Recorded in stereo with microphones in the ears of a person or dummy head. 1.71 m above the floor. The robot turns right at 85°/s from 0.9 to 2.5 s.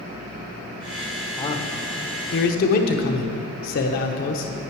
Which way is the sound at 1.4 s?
20° left (ahead or behind).